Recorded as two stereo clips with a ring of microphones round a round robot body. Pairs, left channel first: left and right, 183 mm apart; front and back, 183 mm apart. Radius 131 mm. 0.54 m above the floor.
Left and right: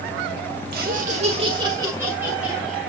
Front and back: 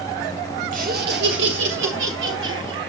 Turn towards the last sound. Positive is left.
turn(degrees=180)